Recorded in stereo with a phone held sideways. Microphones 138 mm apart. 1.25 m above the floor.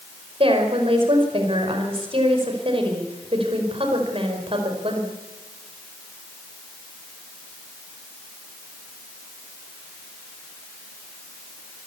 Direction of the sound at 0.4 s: 40° right (ahead or behind).